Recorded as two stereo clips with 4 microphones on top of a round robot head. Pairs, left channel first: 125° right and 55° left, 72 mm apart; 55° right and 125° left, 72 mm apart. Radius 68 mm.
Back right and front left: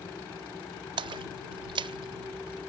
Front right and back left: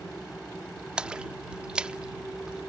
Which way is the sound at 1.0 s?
50° left.